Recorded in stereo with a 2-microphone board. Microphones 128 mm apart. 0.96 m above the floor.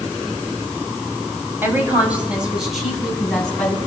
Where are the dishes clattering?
No dishes clattering in this recording.